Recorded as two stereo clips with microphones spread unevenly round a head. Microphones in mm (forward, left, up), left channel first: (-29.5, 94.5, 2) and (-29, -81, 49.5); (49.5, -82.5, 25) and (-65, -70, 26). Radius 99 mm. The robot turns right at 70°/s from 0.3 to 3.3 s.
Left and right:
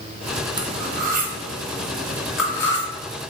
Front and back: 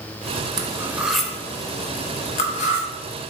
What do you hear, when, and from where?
0.6 s cutlery clinking: 140° right, 0.5 m; by 2.9 s 20° left, 0.5 m